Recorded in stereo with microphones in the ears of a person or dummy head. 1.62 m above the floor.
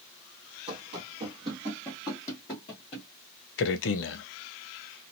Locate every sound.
0.7 s running footsteps: 35° right (ahead or behind), 1.9 m; by 3.1 s 25° left (ahead or behind), 1.8 m
3.6 s a man speaking: 55° left (ahead or behind), 0.6 m